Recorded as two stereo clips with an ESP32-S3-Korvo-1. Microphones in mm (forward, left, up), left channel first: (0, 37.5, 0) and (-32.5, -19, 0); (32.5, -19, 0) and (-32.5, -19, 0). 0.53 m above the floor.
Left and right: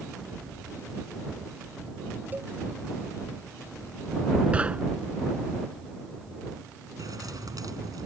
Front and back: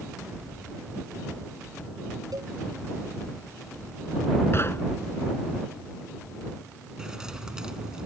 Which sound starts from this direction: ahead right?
Knocking, at 4.5 s.